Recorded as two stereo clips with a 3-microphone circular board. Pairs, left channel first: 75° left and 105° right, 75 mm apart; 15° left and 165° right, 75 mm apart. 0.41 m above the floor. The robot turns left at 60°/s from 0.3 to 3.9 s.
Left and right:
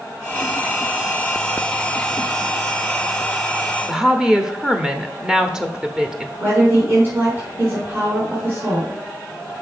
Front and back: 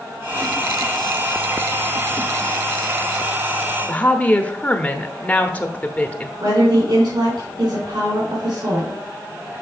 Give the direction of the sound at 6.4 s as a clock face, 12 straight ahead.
5 o'clock.